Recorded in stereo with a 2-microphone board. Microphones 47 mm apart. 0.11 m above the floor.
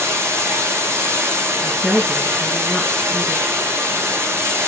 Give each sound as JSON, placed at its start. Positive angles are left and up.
{"t": 0.0, "sound": "running water", "side_deg": -70, "distance_m": 4.0}
{"t": 1.6, "sound": "a woman speaking", "side_deg": -5, "distance_m": 1.6}